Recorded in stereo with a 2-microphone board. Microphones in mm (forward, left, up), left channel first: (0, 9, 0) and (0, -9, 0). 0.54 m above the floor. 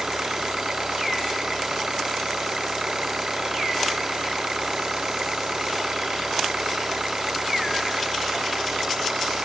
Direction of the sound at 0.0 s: 35° right (ahead or behind).